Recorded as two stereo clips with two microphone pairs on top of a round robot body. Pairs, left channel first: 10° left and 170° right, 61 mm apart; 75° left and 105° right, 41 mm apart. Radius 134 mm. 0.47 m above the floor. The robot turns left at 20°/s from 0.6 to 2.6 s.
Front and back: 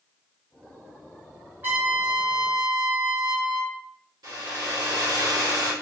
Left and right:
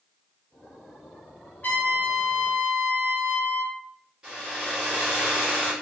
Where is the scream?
I don't hear a scream.